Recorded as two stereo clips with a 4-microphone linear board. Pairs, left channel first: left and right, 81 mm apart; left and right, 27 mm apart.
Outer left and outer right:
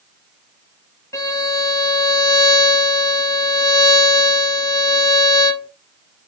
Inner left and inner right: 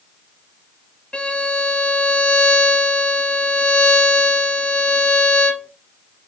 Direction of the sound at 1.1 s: 45° left (ahead or behind).